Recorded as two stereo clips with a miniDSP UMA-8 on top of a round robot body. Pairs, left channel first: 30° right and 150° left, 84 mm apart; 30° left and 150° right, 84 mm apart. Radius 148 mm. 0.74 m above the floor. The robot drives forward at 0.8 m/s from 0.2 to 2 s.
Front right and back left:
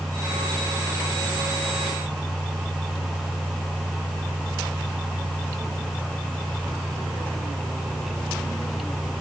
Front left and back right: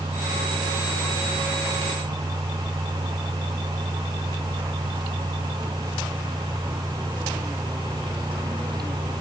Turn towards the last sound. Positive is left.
No sound to turn to.